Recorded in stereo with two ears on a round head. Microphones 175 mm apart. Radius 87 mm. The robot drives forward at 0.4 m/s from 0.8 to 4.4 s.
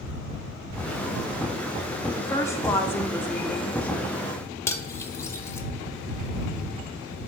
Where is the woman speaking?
15° left (ahead or behind), 0.7 m; by 4.1 s 10° left (ahead or behind), 1.2 m.